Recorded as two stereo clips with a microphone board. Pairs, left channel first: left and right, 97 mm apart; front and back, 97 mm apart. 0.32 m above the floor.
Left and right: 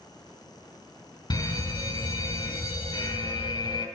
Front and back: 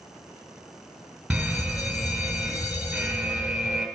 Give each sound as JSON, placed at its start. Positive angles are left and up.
{"t": 1.3, "sound": "a fire alarm", "azimuth_deg": 95, "distance_m": 3.0}